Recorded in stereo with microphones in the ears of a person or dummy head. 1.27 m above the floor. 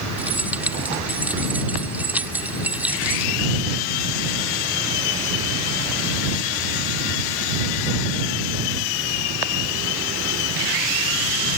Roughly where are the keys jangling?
Centre.